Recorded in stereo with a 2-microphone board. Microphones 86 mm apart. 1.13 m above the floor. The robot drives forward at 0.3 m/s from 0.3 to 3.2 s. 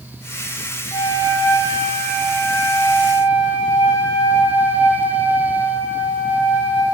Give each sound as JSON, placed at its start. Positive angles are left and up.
{"t": 0.9, "sound": "a flute", "side_deg": 65, "distance_m": 1.3}